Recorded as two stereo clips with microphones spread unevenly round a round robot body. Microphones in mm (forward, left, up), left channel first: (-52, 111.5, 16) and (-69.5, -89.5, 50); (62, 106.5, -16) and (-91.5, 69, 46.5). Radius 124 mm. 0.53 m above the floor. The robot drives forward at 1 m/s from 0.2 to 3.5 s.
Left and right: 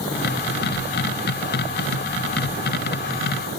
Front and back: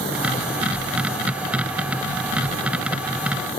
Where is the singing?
I don't hear singing.